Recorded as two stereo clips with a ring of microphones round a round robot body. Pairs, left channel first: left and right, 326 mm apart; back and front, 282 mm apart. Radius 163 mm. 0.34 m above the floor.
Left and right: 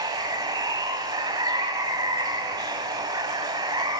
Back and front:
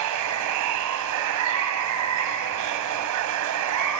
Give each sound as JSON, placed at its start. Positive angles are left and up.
{"t": 0.0, "sound": "running water", "azimuth_deg": -15, "distance_m": 1.4}